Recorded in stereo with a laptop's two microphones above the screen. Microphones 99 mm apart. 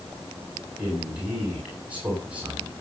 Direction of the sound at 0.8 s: 15° right (ahead or behind).